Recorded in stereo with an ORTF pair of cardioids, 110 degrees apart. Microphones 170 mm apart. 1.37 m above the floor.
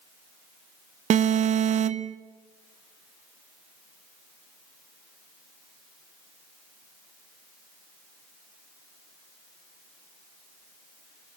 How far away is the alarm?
About 1.0 m.